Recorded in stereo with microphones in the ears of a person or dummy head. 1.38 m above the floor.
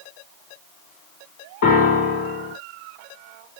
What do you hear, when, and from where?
1.6 s a piano: 60° left (ahead or behind), 2.0 m